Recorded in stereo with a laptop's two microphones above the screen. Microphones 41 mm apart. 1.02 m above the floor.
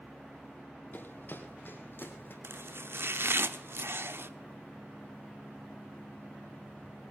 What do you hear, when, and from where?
0.9 s running footsteps: 45° left (ahead or behind), 1.9 m; by 2.3 s 50° left (ahead or behind), 2.5 m
2.4 s chopping: 65° right (ahead or behind), 0.9 m